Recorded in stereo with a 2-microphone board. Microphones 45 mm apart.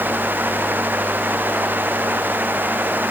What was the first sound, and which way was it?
Only background noise.